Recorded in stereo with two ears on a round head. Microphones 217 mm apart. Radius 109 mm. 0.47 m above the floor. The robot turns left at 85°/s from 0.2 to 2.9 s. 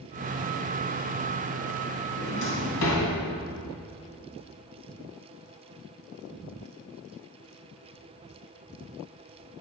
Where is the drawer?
45° left (ahead or behind), 2 m; by 3.1 s 70° left (ahead or behind), 2 m.